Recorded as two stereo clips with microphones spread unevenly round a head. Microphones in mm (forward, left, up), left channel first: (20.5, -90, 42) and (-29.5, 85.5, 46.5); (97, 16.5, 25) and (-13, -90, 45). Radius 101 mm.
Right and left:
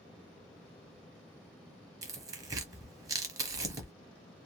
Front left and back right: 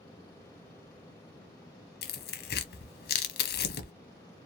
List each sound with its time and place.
2.0 s tearing paper: 35° left, 0.6 m